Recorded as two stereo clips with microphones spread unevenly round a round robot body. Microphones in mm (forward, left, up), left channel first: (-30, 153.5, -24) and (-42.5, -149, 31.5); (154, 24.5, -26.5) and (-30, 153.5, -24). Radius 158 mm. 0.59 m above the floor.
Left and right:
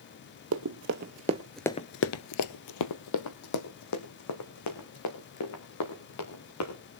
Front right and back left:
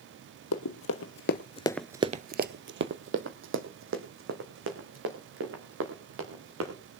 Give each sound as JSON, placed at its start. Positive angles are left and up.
{"t": 0.5, "sound": "running footsteps", "azimuth_deg": -50, "distance_m": 1.3}